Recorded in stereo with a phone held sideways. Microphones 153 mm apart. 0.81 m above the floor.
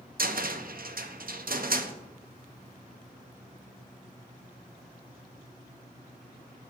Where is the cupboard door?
70° right (ahead or behind), 0.5 m.